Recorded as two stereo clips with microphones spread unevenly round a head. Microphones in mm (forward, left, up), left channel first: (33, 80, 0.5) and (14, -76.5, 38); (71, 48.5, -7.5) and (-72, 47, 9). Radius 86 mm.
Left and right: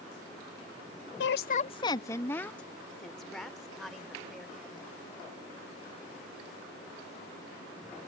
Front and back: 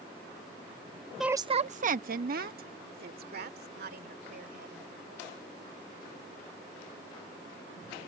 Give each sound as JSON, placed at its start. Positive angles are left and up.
{"t": 1.2, "sound": "a woman speaking", "azimuth_deg": 90}